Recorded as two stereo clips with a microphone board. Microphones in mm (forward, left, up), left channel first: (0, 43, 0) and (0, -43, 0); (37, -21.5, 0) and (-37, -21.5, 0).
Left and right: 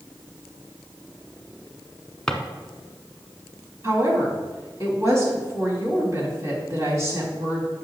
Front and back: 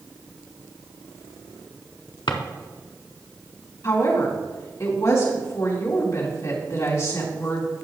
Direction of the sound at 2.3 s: 10° left.